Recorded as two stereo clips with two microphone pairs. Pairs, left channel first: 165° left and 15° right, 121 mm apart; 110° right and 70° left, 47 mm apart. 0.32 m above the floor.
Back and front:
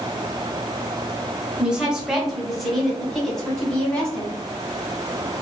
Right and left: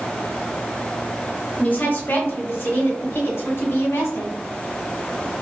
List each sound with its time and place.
1.6 s a woman speaking: 95° right, 1.1 m; by 4.3 s 115° right, 2.5 m